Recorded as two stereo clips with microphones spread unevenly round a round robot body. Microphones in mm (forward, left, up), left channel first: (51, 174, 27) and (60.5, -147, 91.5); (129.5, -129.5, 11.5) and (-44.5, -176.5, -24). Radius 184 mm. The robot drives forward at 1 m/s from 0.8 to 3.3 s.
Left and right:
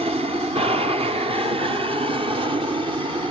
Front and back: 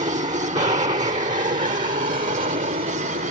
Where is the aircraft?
165° right; by 3.3 s 170° right.